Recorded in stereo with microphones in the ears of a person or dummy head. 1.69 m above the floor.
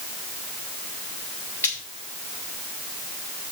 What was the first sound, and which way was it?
Frying, 10° left (ahead or behind).